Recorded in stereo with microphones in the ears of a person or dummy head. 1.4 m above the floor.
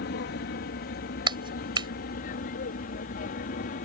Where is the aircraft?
50° left (ahead or behind); by 3.9 s 45° left (ahead or behind).